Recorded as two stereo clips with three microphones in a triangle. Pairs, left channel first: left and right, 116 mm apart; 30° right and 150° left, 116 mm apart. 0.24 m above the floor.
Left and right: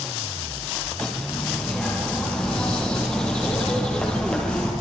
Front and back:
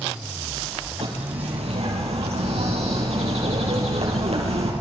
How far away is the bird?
About 6 m.